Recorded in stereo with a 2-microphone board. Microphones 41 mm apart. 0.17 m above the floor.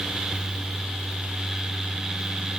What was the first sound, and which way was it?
Only background noise.